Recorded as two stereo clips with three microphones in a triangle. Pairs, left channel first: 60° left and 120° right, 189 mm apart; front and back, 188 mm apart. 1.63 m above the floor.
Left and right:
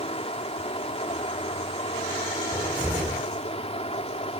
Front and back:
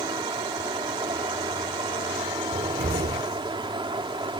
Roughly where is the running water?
Behind left.